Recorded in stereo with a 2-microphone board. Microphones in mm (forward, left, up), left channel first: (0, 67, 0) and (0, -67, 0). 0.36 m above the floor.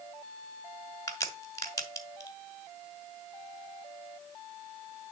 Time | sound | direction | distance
1.1 | a crack | 25° left (ahead or behind) | 1.4 m